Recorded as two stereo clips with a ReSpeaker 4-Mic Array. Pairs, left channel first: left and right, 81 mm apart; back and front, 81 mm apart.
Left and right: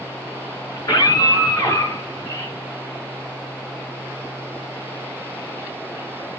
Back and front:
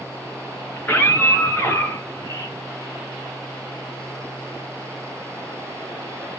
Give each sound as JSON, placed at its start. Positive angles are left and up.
{"t": 0.8, "sound": "a scream", "azimuth_deg": 115, "distance_m": 4.0}